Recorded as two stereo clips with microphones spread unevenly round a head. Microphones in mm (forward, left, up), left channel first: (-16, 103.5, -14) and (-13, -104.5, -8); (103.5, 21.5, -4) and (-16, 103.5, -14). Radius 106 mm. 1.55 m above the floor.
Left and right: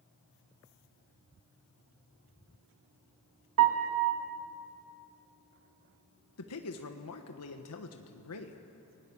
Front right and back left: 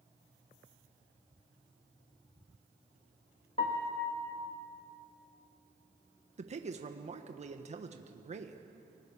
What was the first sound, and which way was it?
A piano, 100° right.